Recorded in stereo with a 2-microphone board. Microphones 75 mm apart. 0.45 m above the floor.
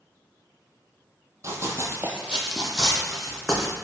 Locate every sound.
1.4 s running footsteps: 40° right (ahead or behind), 0.5 m; by 3.8 s 10° left (ahead or behind), 1.1 m